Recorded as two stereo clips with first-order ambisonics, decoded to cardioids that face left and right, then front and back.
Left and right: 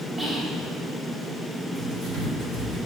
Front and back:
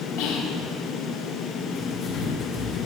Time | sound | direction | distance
0.2 | whispering | 10° right | 0.8 m
1.8 | writing | 45° right | 2.5 m